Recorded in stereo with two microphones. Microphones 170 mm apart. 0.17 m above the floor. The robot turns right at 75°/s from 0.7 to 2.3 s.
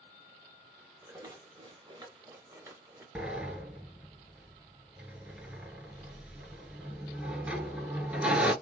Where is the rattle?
135° right, 1.4 m; by 3.0 s 40° right, 1.4 m.